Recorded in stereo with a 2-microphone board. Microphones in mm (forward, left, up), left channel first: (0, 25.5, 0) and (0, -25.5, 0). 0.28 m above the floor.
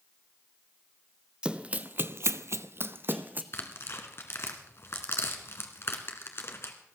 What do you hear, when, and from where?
1.4 s running footsteps: 20° right (ahead or behind), 0.8 m; by 3.4 s 35° right (ahead or behind), 1.1 m
3.5 s tearing paper: 55° left (ahead or behind), 1.8 m